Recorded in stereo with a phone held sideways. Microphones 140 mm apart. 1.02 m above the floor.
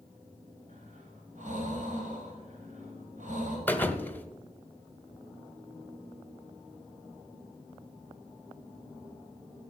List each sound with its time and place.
0.7 s breathing: 60° right (ahead or behind), 4 m
3.7 s a thud: 15° left (ahead or behind), 0.8 m